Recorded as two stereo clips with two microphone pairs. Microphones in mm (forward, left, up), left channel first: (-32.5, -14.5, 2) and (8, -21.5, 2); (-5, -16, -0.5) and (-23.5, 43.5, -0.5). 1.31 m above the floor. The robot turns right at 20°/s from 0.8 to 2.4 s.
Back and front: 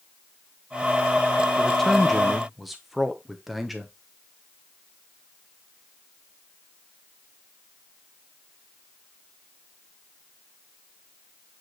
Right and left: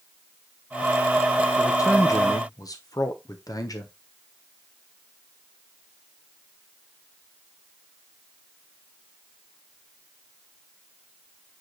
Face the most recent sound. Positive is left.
turn(degrees=-95)